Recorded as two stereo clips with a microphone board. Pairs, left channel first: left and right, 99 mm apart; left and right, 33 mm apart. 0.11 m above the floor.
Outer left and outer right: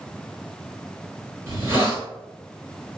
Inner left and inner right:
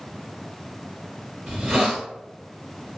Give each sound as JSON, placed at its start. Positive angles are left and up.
{"t": 1.5, "sound": "a hiss", "side_deg": -25, "distance_m": 1.5}